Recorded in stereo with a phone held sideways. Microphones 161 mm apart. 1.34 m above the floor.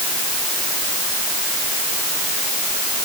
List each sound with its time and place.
Only background noise.